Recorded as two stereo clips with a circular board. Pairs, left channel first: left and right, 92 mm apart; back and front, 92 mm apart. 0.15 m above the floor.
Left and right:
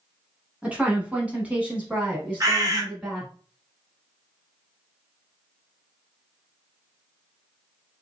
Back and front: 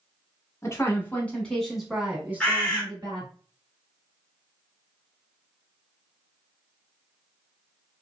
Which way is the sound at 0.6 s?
155° right.